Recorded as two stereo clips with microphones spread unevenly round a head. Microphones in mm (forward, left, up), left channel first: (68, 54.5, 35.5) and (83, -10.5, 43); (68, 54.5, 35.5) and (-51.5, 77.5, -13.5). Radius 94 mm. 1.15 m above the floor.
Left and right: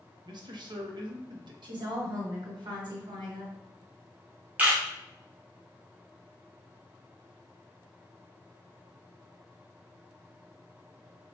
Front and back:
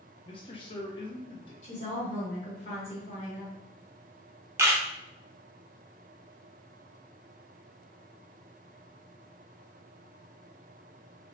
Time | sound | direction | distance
0.2 | a man speaking | 80° right | 0.6 m
1.6 | a woman speaking | 65° right | 1.3 m
4.6 | a camera shutter | 150° right | 0.6 m